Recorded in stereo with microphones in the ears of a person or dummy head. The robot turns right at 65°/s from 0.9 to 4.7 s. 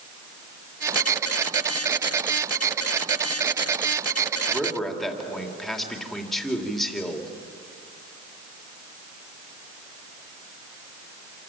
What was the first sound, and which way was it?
A man speaking, 20° right (ahead or behind).